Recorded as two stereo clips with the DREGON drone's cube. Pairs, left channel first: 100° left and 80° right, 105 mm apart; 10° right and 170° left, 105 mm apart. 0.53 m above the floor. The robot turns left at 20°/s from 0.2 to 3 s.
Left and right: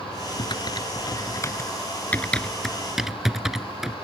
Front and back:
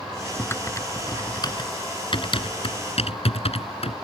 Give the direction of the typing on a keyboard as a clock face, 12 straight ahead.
10 o'clock.